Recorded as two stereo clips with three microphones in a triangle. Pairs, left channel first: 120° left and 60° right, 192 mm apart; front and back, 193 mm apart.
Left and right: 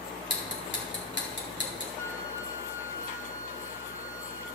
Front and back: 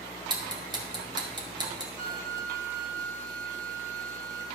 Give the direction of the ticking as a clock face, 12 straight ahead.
8 o'clock.